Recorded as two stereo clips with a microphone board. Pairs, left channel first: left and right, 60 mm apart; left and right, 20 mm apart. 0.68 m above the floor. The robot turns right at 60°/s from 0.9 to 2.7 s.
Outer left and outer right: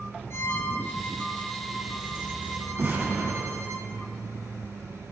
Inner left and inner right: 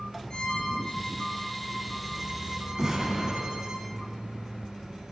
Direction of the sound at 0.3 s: 130° left.